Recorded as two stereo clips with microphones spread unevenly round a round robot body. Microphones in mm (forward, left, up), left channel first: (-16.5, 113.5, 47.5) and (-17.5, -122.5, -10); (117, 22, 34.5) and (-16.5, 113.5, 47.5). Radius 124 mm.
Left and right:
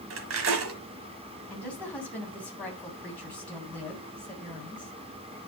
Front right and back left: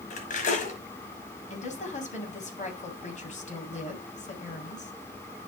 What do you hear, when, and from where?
0.1 s cutlery clinking: 80° right, 1.3 m
1.5 s a woman speaking: straight ahead, 2.5 m